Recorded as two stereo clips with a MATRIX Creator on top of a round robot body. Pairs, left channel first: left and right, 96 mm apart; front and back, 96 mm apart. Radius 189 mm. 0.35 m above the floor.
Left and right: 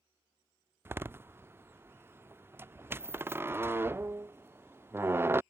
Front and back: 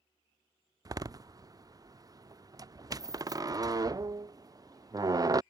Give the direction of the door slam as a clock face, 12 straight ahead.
5 o'clock.